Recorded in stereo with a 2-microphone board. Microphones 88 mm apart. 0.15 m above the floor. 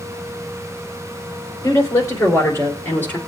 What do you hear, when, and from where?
1.6 s a woman speaking: 35° left (ahead or behind), 3.5 m; by 3.2 s 25° left (ahead or behind), 3 m